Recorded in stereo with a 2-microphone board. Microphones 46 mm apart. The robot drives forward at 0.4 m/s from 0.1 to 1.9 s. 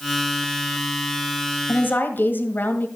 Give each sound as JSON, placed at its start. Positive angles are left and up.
{"t": 1.7, "sound": "a woman speaking", "side_deg": 45, "distance_m": 1.6}